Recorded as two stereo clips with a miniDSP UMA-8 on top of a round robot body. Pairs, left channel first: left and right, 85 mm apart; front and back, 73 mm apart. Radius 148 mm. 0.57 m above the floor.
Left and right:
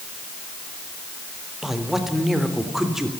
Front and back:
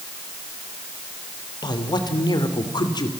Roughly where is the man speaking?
Ahead.